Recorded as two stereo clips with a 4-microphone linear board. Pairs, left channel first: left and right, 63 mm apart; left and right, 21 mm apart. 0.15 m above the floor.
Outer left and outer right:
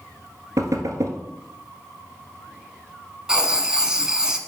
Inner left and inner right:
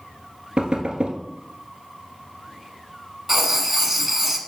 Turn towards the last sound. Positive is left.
turn(degrees=-15)  # may be behind; listen again after turning